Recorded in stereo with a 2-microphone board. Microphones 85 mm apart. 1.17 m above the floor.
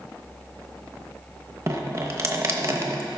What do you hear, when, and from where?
1.7 s dripping: 30° right (ahead or behind), 0.9 m